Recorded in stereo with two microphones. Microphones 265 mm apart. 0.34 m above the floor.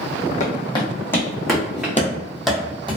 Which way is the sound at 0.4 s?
30° left (ahead or behind).